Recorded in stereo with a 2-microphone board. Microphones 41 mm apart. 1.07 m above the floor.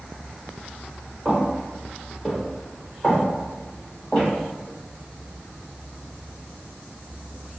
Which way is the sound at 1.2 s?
15° right (ahead or behind).